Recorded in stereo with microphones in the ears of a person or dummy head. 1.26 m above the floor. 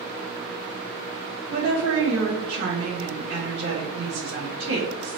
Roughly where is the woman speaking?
Right.